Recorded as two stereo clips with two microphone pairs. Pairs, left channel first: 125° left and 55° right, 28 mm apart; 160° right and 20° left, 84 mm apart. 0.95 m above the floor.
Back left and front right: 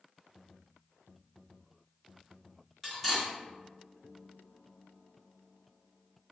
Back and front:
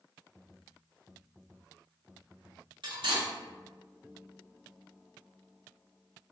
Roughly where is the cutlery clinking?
Ahead left.